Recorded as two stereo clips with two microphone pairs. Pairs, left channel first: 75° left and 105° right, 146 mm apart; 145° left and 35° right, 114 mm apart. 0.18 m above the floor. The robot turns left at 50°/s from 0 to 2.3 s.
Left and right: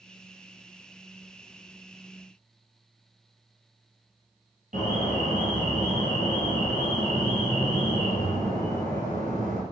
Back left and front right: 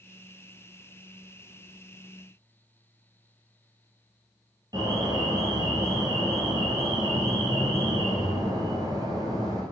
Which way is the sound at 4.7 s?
90° right.